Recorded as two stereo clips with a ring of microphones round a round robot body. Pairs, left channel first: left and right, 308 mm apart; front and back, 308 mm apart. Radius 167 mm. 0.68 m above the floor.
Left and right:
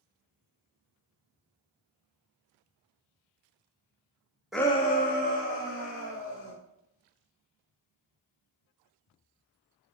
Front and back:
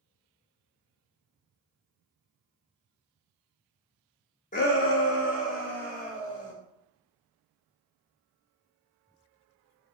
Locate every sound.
4.5 s a shout: 5° right, 0.6 m; by 6.5 s 45° left, 3 m